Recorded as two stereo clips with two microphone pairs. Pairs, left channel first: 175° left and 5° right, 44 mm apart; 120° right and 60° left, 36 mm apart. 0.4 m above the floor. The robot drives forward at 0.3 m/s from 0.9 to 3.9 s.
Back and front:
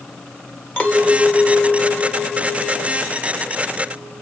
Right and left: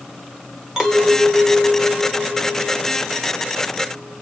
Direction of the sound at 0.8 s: 130° left.